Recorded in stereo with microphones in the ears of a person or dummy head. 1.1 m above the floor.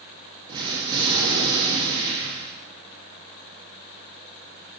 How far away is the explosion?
About 1.6 m.